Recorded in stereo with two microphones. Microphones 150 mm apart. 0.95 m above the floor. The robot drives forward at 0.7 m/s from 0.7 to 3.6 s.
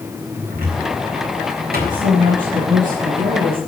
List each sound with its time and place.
0.5 s a cupboard door: 75° right (ahead or behind), 3.5 m; by 2.0 s 85° right, 3.5 m
1.9 s a woman speaking: 60° right (ahead or behind), 7.5 m; by 3.6 s 65° right (ahead or behind), 7 m